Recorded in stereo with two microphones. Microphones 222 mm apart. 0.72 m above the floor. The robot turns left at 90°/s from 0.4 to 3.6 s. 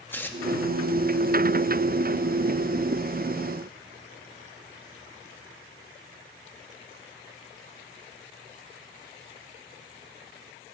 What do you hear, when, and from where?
0.1 s tearing paper: 10° left (ahead or behind), 1.0 m